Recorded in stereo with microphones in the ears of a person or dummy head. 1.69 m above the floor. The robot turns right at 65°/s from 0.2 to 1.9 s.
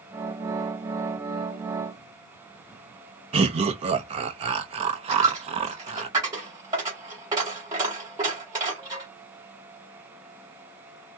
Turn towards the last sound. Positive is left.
turn(degrees=-20)  # may be behind; listen again after turning